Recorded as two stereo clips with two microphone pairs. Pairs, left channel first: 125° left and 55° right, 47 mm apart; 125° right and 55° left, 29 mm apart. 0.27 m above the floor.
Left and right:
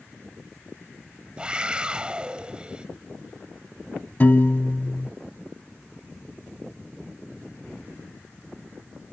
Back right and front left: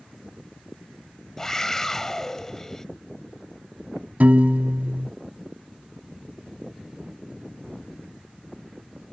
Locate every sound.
1.4 s a scream: 85° right
4.2 s a piano: 80° left